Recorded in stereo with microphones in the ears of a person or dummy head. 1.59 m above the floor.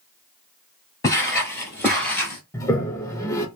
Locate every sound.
1.0 s footsteps: 15° left (ahead or behind), 1.7 m; by 2.4 s centre (ahead or behind), 1.5 m
2.5 s a toilet flushing: 15° left (ahead or behind), 0.7 m